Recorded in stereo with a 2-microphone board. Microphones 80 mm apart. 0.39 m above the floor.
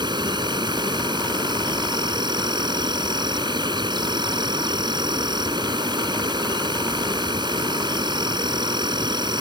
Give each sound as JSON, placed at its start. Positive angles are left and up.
{"t": 0.0, "sound": "an insect", "side_deg": -75}